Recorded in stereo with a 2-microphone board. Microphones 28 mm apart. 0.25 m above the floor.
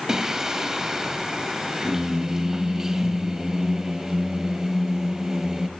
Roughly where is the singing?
Centre.